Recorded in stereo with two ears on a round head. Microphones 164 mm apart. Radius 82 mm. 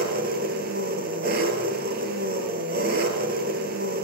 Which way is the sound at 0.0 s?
55° right (ahead or behind).